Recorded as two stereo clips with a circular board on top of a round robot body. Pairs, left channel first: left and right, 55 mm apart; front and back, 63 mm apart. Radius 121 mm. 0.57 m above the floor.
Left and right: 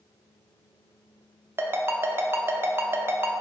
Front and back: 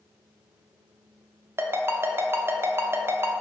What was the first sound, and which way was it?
A ringtone, 130° right.